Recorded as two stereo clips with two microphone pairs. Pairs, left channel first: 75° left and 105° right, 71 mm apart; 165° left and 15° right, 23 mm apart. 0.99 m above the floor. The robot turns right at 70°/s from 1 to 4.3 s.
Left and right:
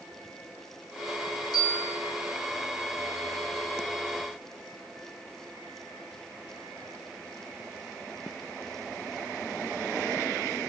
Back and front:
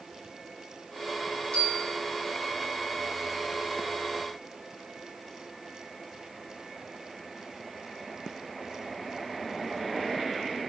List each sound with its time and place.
1.5 s a bell: 160° left, 1.4 m; by 1.9 s 170° right, 1.4 m